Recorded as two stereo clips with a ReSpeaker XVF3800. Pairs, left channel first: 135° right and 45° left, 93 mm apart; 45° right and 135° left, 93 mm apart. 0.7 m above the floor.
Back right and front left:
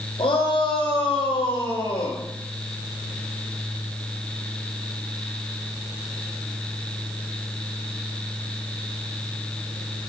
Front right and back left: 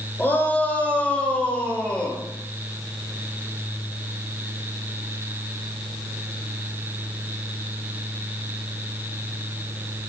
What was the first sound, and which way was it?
A shout, 115° right.